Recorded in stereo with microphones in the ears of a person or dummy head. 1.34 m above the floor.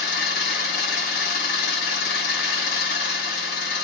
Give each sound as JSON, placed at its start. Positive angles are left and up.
{"t": 0.0, "sound": "an engine running", "side_deg": 60, "distance_m": 1.5}